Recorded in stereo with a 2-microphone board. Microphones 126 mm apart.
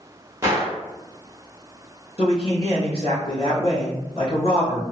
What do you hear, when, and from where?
0.4 s a gunshot: 25° right (ahead or behind), 1.2 m
2.2 s a man speaking: 45° left (ahead or behind), 1.7 m